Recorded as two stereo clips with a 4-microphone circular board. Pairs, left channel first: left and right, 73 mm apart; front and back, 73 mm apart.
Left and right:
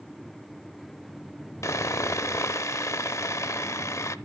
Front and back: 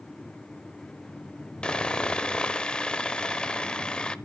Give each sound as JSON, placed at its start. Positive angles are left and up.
{"t": 1.6, "sound": "sawing", "azimuth_deg": 75, "distance_m": 0.6}